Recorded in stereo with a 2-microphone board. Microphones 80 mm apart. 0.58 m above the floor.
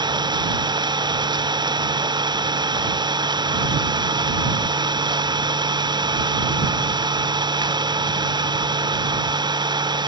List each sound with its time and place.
0.0 s an engine running: 65° right (ahead or behind)